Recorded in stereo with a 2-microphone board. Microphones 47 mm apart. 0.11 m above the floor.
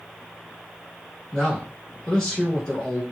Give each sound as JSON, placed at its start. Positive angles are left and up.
{"t": 1.3, "sound": "a man speaking", "side_deg": 15, "distance_m": 1.2}